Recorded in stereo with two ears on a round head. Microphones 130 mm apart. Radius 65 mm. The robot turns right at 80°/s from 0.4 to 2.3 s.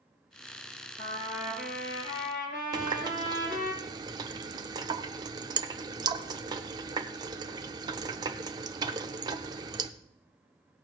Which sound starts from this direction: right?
A running tap, at 2.7 s.